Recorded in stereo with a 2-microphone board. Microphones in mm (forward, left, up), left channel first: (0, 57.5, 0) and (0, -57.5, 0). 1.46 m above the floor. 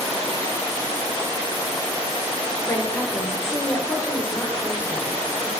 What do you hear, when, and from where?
2.6 s a woman speaking: 20° left (ahead or behind), 1.3 m